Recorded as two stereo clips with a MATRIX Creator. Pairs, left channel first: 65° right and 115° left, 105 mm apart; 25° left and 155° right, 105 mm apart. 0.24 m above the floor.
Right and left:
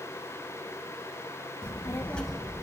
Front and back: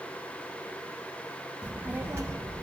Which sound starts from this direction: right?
A child speaking, at 1.6 s.